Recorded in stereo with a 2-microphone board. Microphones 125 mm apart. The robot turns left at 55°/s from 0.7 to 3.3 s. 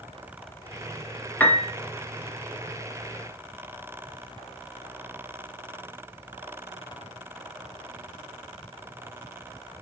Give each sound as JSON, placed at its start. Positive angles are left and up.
{"t": 1.4, "sound": "a piano", "side_deg": 15, "distance_m": 0.6}